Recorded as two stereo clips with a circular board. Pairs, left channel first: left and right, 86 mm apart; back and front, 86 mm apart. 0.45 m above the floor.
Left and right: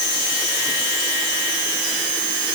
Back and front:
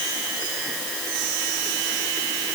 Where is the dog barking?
No dog barking in this recording.